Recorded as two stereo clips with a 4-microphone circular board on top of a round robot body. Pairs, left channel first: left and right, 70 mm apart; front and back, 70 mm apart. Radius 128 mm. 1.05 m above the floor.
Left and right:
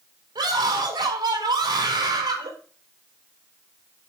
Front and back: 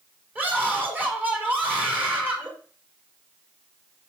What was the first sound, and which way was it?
A scream, 115° right.